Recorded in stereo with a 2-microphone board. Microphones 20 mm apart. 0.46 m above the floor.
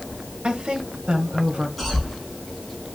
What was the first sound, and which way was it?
A woman speaking, 65° right (ahead or behind).